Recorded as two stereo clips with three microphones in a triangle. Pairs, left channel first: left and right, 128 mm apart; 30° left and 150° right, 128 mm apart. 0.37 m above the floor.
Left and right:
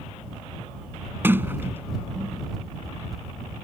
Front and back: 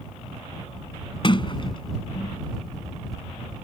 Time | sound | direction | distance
1.2 | a sliding door | 20° right | ?